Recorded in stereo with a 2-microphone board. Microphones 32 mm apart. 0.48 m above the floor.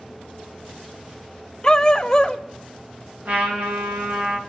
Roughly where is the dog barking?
Left.